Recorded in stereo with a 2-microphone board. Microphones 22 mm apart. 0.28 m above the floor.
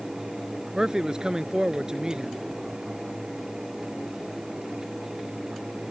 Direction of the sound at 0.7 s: 30° right (ahead or behind).